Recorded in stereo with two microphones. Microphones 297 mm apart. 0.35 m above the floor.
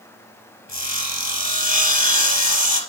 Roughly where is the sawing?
Left.